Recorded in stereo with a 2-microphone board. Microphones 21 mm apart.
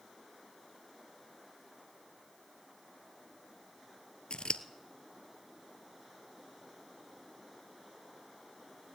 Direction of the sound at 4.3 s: 65° left (ahead or behind).